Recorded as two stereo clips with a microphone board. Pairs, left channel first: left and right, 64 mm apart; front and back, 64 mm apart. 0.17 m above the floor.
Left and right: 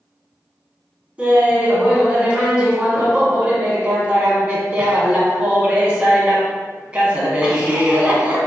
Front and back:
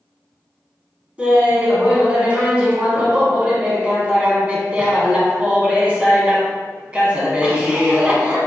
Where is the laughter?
135° right, 1.1 m.